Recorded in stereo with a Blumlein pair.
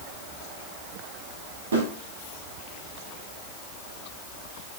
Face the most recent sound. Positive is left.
turn(degrees=-70)